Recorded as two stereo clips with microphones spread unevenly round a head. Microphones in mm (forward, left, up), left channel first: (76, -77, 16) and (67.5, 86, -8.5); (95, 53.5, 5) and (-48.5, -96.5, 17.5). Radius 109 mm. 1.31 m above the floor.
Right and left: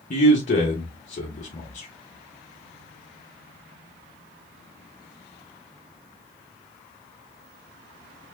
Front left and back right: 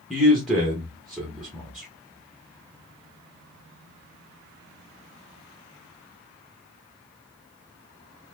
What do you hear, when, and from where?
0.1 s a man speaking: 45° right, 1.2 m